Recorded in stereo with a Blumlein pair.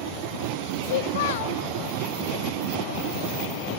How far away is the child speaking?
About 1.5 m.